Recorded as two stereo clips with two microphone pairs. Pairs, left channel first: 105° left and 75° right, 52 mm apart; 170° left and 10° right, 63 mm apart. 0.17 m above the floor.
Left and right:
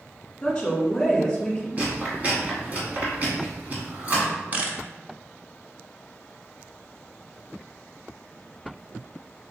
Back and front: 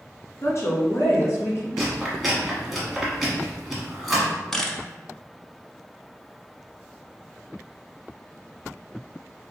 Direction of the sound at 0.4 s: 175° left.